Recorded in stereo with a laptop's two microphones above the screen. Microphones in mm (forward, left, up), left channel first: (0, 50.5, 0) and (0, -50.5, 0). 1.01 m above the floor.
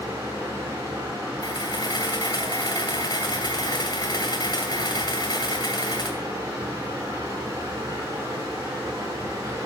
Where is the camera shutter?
45° left (ahead or behind), 2 m.